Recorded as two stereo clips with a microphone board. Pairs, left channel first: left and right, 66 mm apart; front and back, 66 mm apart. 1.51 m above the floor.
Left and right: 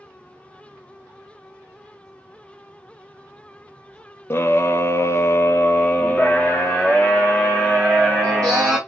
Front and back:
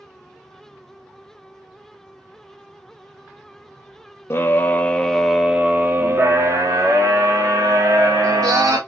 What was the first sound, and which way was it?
A scream, 45° left.